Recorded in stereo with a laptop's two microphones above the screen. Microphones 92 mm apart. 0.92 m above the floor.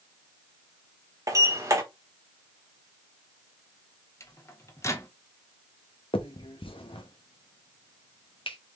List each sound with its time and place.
1.3 s a sliding door: 35° right (ahead or behind), 1.1 m
4.2 s a microwave: 30° left (ahead or behind), 0.7 m
6.1 s a finger snap: 70° left (ahead or behind), 0.8 m